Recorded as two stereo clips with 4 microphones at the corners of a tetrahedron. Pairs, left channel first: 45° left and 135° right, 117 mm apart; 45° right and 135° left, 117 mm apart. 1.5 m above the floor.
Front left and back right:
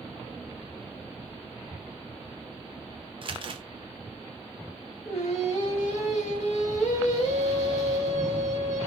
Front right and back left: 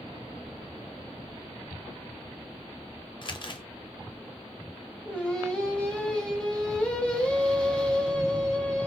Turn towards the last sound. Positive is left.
turn(degrees=35)